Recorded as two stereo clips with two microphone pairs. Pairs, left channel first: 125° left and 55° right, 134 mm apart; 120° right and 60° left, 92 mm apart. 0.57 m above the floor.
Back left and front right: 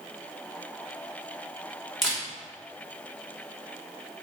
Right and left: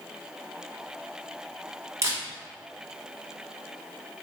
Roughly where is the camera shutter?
Ahead left.